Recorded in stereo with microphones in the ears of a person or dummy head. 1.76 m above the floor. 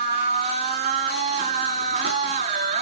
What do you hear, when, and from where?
0.0 s a machine running: 40° right (ahead or behind), 5 m